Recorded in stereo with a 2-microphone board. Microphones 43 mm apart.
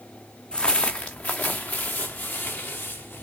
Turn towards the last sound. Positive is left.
turn(degrees=50)  # may be behind; listen again after turning